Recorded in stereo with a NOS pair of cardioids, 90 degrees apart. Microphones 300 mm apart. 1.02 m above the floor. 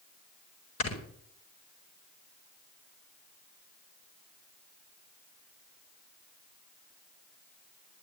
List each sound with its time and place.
0.8 s snoring: 60° left, 6 m